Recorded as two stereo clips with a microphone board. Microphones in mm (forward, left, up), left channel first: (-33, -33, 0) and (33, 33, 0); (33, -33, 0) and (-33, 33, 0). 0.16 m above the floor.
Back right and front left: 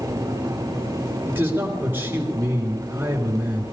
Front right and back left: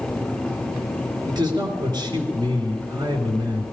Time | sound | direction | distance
1.3 | a man speaking | 110° left | 3 m